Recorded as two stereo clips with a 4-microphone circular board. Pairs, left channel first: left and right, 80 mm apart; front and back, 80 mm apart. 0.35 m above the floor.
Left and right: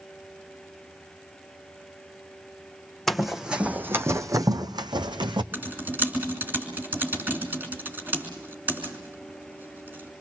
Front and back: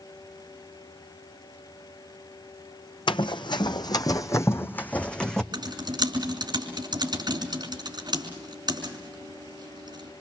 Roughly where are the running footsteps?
Ahead.